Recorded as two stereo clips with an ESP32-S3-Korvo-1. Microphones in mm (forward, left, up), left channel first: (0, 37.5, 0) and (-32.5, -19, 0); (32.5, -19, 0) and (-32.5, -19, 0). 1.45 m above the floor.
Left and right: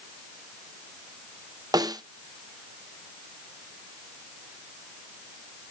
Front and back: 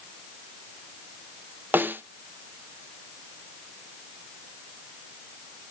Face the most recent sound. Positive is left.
turn(degrees=-120)